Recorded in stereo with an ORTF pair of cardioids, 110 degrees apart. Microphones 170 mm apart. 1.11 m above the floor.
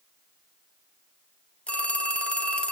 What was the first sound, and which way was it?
A phone ringing, 5° left.